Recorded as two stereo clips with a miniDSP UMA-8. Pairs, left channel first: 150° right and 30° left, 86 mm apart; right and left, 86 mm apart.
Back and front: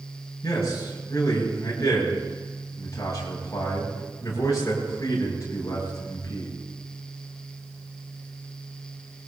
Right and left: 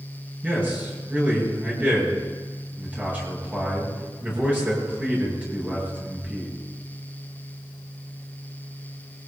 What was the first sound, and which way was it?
A man speaking, 160° left.